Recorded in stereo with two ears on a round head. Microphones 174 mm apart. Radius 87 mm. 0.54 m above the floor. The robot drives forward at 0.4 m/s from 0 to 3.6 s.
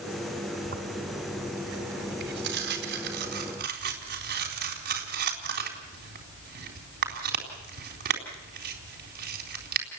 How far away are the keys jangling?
No keys jangling in this recording.